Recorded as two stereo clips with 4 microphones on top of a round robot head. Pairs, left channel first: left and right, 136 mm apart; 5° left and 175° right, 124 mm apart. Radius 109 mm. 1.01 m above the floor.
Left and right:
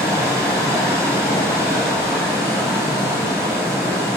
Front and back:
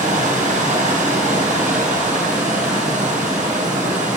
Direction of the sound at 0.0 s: 165° left.